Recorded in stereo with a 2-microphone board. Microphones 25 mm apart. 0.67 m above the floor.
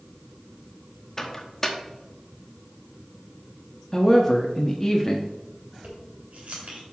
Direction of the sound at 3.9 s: 15° left (ahead or behind).